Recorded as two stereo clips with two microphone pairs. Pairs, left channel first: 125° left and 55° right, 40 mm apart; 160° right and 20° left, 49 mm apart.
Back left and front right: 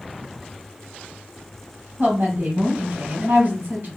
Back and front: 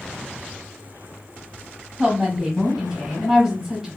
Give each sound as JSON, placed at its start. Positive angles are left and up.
{"t": 2.0, "sound": "a woman speaking", "azimuth_deg": -65, "distance_m": 1.6}